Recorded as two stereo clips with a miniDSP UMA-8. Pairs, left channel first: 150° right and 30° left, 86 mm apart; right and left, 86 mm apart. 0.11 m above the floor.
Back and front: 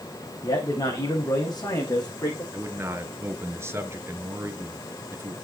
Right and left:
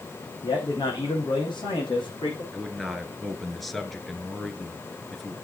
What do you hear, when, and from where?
0.4 s a man speaking: 120° right, 6.5 m; by 2.4 s 110° right, 7 m
2.5 s a man speaking: straight ahead, 1.8 m